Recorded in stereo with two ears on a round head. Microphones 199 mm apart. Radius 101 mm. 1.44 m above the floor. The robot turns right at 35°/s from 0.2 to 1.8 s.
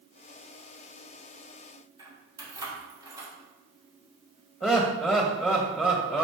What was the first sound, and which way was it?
Keys jangling, 15° right (ahead or behind).